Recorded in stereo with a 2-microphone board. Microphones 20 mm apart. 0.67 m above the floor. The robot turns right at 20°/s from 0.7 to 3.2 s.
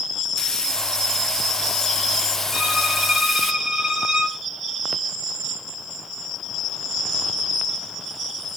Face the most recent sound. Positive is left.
turn(degrees=-45)  # may be behind; listen again after turning